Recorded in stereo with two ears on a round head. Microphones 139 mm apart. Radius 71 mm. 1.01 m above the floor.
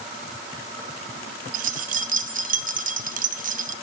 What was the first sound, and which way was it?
Keys jangling, 55° right (ahead or behind).